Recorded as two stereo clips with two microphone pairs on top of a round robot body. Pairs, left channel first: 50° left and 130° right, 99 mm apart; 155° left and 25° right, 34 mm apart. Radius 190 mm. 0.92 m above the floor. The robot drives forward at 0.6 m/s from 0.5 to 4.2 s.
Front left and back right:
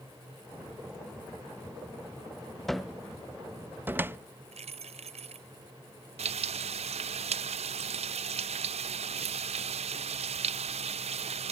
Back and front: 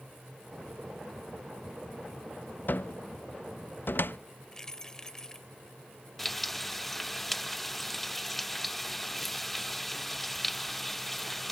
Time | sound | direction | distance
2.7 | a cupboard door | 135° left | ?
4.5 | keys jangling | 130° right | ?
6.2 | frying | 120° right | ?